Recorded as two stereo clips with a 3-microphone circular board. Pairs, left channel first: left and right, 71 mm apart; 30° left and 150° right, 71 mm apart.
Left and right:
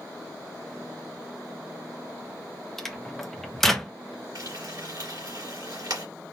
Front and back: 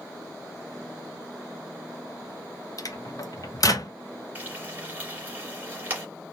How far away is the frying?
About 2.0 m.